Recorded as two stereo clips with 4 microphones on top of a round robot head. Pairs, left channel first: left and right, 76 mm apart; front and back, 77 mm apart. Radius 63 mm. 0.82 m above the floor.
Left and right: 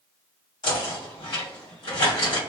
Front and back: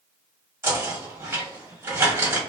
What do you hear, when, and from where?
0.6 s knocking: 125° left, 1.6 m